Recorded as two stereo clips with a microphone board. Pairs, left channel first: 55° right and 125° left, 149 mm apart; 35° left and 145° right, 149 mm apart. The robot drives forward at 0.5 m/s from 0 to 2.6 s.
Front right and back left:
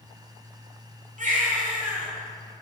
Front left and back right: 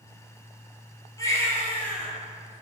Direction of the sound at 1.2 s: 100° left.